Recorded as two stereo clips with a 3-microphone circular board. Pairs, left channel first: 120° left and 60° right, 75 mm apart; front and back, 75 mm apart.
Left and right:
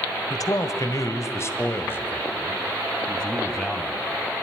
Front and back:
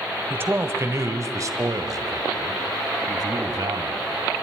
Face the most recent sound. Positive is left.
turn(degrees=-155)